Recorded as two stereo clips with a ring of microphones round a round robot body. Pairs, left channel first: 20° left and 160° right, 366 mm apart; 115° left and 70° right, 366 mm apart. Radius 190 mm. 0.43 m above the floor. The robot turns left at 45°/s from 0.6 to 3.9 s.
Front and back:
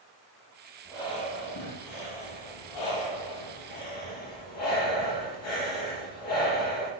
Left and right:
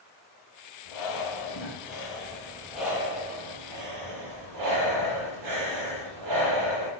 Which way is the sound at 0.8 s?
110° left.